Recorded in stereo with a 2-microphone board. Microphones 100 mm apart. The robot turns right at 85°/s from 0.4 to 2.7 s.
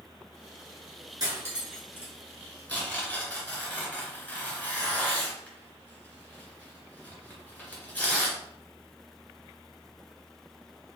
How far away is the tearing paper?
About 1.8 m.